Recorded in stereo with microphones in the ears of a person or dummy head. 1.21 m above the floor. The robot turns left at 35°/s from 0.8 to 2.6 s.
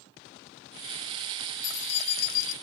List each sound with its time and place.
1.6 s keys jangling: 85° left, 0.7 m; by 2.5 s 55° left, 0.7 m